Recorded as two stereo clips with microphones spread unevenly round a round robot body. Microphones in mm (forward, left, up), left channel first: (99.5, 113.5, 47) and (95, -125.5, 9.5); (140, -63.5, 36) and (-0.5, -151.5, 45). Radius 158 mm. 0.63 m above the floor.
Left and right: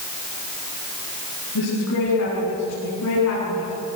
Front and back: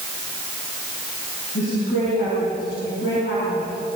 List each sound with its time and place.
1.6 s a woman speaking: 90° left, 8 m